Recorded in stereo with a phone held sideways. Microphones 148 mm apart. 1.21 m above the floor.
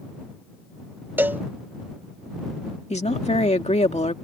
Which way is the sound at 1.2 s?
15° right (ahead or behind).